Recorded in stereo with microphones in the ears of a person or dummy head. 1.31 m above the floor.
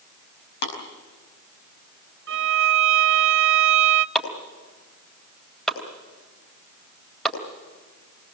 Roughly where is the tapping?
Left.